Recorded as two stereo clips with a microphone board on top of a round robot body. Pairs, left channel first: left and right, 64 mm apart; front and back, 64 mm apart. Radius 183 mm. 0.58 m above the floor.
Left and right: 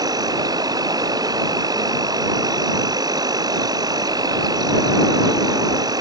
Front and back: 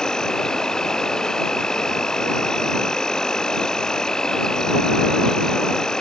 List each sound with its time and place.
0.0 s an insect: 80° right